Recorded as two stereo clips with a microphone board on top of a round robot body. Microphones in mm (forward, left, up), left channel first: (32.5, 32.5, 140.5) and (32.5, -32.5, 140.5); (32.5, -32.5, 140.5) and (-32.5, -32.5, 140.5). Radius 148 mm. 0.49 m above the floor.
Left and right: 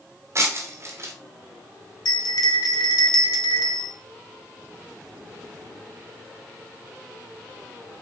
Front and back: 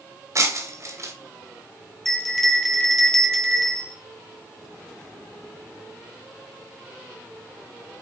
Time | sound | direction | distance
0.3 | breaking glass | 140° right | 2 m
2.0 | a bell | 85° left | 2.0 m